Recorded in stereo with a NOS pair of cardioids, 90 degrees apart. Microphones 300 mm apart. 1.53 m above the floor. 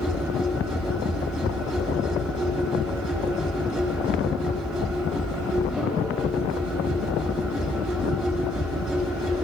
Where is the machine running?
Straight ahead, 4.5 m.